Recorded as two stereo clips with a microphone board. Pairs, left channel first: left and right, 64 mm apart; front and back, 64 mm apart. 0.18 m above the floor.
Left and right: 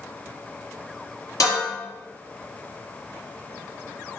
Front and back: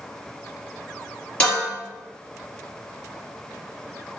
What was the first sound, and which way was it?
Dishes clattering, 65° left.